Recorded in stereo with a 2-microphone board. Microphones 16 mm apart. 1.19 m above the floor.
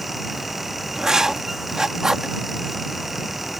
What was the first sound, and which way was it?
Writing, 45° right (ahead or behind).